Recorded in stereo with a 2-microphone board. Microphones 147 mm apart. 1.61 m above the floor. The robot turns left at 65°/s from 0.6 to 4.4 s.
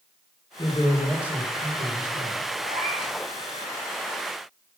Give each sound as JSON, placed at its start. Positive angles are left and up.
{"t": 0.6, "sound": "a man speaking", "azimuth_deg": 30, "distance_m": 2.0}
{"t": 2.6, "sound": "a cat meowing", "azimuth_deg": -70, "distance_m": 5.5}